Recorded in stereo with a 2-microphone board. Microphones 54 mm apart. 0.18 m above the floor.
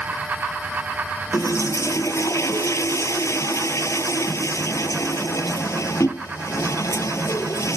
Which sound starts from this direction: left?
A toilet flushing, at 1.3 s.